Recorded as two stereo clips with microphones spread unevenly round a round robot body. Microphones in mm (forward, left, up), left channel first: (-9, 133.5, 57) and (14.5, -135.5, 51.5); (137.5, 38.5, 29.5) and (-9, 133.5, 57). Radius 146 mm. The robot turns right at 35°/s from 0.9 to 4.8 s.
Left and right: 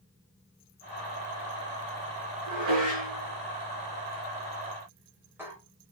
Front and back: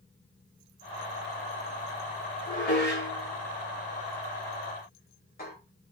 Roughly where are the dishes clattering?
Right.